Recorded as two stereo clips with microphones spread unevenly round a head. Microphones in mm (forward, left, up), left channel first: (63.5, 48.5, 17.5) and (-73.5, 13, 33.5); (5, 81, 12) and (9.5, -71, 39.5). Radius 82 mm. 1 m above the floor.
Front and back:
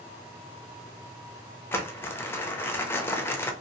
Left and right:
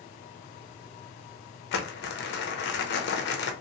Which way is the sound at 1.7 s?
90° left.